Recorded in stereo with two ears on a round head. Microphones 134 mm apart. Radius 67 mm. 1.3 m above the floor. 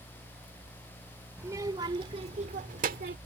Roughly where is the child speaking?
Centre.